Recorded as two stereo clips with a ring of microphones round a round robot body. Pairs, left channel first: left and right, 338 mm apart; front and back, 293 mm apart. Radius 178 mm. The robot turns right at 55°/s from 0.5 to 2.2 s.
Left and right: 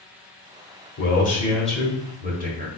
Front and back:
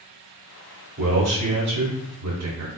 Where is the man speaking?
140° left, 1.4 m; by 2.7 s 155° right, 1.4 m.